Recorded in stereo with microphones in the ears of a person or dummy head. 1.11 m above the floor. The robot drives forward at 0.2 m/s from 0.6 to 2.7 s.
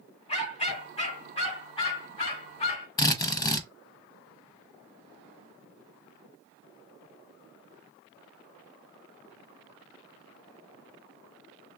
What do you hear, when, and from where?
0.3 s a dog barking: 35° left (ahead or behind), 1.9 m; by 2.9 s 30° left (ahead or behind), 2.5 m
3.0 s a drill: 15° left (ahead or behind), 0.6 m